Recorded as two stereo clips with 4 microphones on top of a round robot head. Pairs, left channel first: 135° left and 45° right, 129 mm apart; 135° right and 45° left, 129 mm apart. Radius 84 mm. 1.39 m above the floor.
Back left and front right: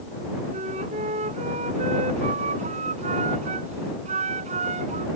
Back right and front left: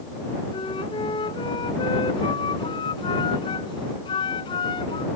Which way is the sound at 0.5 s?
80° right.